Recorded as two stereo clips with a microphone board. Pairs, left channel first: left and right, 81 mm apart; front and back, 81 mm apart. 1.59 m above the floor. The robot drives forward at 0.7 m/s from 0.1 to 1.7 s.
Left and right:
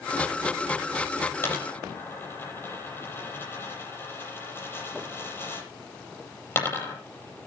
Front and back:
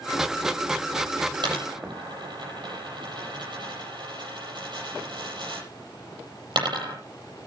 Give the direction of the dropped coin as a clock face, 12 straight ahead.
7 o'clock.